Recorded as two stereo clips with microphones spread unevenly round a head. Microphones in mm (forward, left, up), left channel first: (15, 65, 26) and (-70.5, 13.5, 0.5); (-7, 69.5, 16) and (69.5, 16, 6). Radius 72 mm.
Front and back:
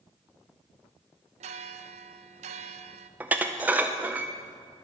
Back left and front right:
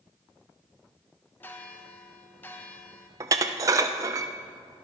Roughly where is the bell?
Behind right.